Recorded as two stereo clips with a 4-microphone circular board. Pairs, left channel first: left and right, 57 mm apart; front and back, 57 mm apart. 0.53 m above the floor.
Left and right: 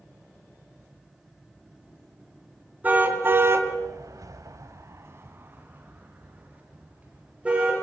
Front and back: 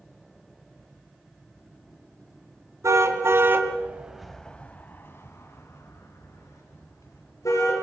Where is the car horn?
150° right, 2.5 m; by 7.8 s 20° right, 6 m.